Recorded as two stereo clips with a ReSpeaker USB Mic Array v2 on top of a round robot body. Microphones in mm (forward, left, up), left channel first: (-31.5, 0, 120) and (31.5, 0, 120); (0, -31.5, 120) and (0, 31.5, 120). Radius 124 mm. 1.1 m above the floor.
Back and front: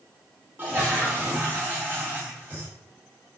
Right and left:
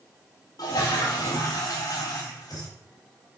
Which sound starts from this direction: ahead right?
A toilet flushing, at 0.6 s.